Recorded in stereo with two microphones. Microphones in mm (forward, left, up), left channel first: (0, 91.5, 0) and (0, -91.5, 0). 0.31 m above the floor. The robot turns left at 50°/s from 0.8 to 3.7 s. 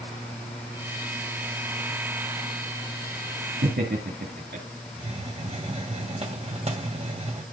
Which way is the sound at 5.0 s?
35° right (ahead or behind).